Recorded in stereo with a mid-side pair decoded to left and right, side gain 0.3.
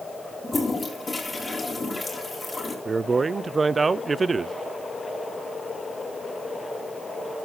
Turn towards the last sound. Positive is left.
turn(degrees=-40)